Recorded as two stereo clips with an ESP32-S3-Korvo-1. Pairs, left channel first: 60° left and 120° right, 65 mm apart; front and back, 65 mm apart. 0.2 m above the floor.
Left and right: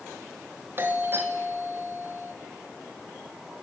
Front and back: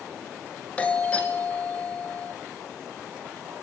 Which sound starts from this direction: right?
A doorbell, at 0.8 s.